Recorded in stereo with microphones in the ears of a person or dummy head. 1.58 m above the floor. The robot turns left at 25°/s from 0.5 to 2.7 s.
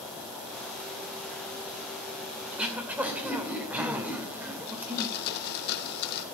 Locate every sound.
2.5 s throat clearing: centre (ahead or behind), 2.5 m; by 5.2 s 5° right (ahead or behind), 2.5 m
4.7 s a blender: 60° left (ahead or behind), 1.6 m